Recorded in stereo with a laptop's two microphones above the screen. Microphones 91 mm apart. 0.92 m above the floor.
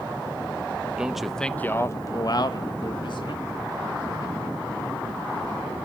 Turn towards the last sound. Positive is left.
turn(degrees=65)  # may be behind; listen again after turning